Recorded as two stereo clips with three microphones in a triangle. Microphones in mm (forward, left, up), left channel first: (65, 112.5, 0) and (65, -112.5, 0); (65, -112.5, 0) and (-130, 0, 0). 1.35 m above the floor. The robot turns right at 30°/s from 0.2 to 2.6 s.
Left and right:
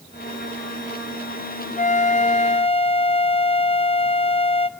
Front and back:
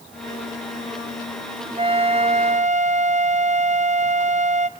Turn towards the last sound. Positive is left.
turn(degrees=130)